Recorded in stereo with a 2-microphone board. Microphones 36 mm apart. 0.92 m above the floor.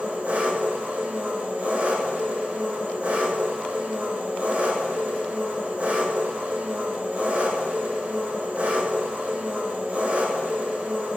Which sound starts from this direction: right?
An engine running, at 0.0 s.